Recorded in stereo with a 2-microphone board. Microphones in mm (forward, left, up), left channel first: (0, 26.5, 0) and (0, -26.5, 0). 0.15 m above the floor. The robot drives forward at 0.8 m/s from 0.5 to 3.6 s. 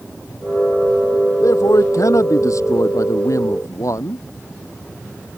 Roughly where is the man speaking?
Left.